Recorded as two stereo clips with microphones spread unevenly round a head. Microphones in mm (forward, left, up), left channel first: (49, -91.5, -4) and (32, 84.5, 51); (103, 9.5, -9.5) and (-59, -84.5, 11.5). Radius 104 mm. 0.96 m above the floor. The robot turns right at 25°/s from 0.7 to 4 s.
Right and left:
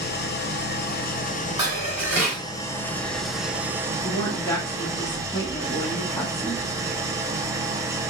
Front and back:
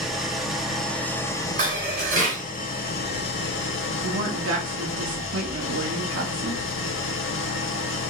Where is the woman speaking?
155° right, 1.5 m.